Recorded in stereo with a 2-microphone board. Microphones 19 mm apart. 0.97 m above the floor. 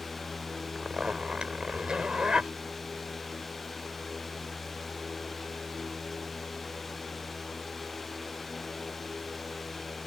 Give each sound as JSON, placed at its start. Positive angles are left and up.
{"t": 0.8, "sound": "a zipper", "side_deg": -55}